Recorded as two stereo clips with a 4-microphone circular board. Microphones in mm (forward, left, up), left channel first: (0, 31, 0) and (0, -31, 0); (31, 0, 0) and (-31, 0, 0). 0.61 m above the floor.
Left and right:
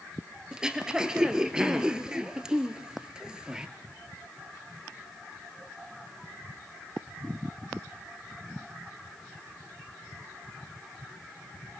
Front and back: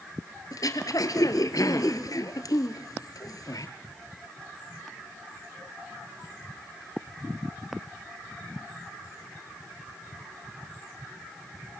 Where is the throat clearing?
15° right, 1.7 m.